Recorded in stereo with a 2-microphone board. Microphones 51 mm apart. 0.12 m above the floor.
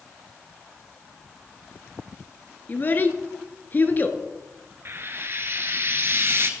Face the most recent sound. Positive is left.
turn(degrees=-50)  # may be behind; listen again after turning